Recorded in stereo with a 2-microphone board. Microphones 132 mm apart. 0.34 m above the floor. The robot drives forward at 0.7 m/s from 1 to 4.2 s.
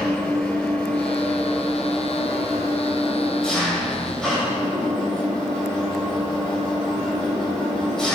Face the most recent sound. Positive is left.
turn(degrees=0)  # may be behind; listen again after turning